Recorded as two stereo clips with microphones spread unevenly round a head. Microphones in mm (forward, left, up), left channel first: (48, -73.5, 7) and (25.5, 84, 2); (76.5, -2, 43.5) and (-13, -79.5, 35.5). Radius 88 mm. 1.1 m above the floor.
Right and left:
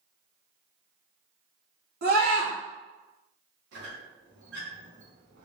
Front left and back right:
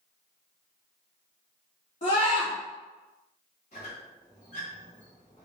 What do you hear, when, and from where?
2.0 s a scream: 80° left, 2 m
3.7 s a squeak: 90° left, 2.0 m